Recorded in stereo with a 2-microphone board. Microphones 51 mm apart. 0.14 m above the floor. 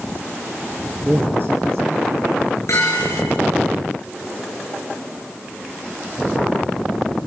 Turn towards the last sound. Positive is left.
turn(degrees=85)